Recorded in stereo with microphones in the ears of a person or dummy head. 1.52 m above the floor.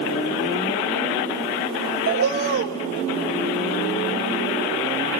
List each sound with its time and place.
2.1 s a bird: 50° right (ahead or behind), 0.9 m